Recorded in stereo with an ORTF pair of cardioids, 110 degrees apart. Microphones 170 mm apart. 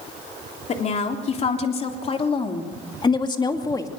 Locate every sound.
0.7 s a woman speaking: 45° left, 3.5 m; by 3.9 s 20° left, 2.5 m